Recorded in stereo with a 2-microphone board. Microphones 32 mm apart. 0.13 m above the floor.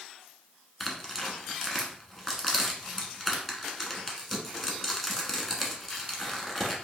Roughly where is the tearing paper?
Centre.